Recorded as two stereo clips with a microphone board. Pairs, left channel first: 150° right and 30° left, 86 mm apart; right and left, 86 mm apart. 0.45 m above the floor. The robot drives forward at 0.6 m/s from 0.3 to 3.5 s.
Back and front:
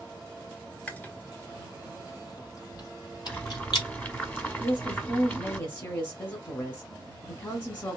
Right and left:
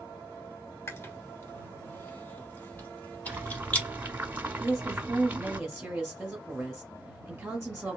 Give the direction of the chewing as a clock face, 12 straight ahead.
3 o'clock.